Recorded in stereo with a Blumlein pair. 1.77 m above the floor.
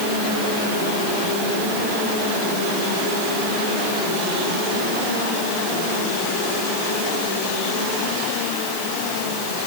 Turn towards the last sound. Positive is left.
No sound to turn to.